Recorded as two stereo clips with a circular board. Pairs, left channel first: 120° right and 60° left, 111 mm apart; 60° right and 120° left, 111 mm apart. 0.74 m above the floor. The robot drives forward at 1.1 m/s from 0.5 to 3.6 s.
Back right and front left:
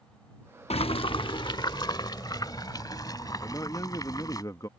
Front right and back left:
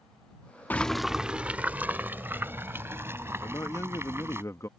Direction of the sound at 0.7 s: 135° right.